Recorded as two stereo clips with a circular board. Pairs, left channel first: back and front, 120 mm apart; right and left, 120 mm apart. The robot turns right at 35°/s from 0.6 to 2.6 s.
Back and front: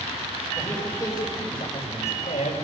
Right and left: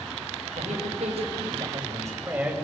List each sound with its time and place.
0.6 s a man speaking: 105° left, 5 m; by 2.5 s 170° left, 5 m